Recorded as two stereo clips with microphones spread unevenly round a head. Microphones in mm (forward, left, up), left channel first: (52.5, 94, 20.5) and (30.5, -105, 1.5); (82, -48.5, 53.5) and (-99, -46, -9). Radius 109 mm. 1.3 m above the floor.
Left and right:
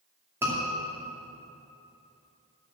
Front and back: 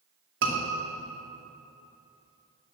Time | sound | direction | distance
0.4 | a scream | 175° right | 2.5 m